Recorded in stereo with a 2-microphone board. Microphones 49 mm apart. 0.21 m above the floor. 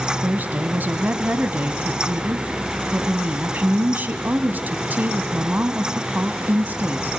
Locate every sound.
0.2 s a woman speaking: 40° right (ahead or behind), 1.2 m